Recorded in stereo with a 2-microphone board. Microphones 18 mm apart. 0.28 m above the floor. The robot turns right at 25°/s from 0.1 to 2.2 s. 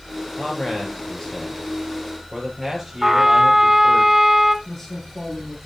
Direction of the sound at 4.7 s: 15° left (ahead or behind).